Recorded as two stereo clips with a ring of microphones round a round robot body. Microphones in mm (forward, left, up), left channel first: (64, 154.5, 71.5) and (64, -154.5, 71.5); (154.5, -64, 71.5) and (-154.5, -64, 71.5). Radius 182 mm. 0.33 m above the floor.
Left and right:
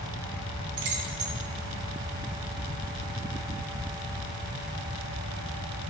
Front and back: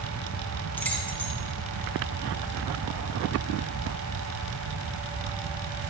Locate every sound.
0.8 s keys jangling: 85° right, 2.5 m